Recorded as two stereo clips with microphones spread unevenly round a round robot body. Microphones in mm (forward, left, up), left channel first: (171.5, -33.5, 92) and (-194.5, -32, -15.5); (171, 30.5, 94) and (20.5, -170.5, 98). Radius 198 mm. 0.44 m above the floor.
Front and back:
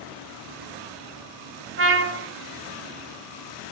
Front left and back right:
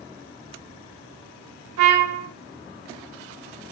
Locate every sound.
1.8 s a trumpet: 125° right, 1.0 m